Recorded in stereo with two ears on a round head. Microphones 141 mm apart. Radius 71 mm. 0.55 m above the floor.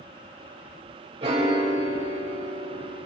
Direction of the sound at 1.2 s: 40° right (ahead or behind).